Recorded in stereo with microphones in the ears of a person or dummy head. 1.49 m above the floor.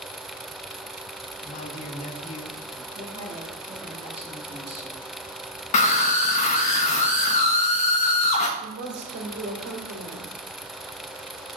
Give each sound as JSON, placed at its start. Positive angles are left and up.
{"t": 1.4, "sound": "a man speaking", "side_deg": 40, "distance_m": 1.8}
{"t": 2.9, "sound": "a woman speaking", "side_deg": -30, "distance_m": 5.0}
{"t": 5.7, "sound": "a scream", "side_deg": 40, "distance_m": 1.1}
{"t": 8.6, "sound": "a woman speaking", "side_deg": -65, "distance_m": 2.5}